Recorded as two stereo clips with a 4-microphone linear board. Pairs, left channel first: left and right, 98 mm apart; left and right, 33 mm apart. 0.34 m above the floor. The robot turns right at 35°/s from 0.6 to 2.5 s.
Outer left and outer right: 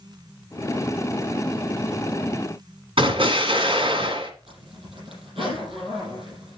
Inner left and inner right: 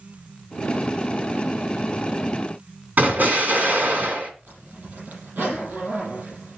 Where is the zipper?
75° right (ahead or behind), 6.5 m.